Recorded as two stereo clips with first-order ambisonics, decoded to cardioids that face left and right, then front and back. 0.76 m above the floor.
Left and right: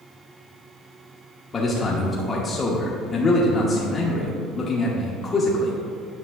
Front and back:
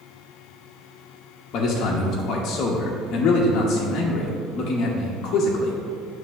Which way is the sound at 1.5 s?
25° left.